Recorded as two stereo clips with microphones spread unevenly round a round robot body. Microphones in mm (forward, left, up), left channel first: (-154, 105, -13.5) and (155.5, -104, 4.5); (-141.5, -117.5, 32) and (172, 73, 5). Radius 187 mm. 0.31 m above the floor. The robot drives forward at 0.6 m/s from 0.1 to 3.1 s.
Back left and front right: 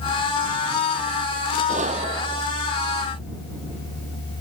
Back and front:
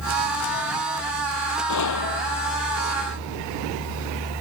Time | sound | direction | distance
1.7 | a gunshot | 105° right | ?